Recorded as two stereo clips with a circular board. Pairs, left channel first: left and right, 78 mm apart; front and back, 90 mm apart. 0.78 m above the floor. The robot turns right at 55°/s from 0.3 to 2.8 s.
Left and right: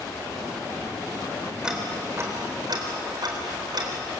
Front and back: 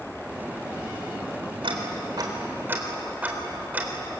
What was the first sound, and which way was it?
Ticking, 170° right.